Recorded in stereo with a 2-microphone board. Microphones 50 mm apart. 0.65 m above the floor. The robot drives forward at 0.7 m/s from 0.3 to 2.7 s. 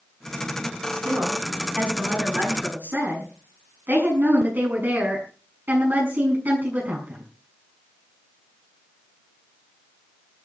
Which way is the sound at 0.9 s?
45° right (ahead or behind).